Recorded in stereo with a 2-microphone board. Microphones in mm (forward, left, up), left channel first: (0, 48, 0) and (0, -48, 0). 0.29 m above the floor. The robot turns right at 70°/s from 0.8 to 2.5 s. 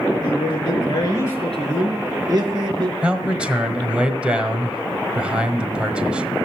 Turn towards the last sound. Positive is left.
turn(degrees=-10)  # may be behind; listen again after turning